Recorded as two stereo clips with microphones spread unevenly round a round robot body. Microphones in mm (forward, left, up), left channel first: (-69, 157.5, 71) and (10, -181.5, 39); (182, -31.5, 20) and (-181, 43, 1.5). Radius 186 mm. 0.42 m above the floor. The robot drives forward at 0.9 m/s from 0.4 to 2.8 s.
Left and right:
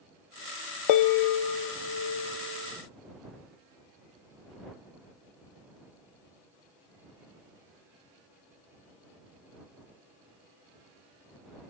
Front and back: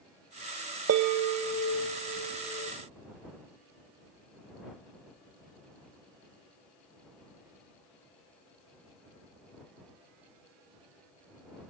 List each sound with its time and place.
0.9 s a bell: 115° left, 0.5 m; by 2.7 s 165° left, 1.9 m